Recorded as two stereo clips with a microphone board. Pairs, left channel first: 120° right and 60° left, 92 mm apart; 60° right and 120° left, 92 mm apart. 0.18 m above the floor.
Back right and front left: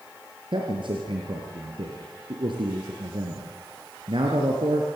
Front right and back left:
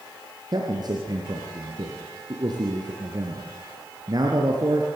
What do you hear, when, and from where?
0.5 s a man speaking: 80° left, 3.5 m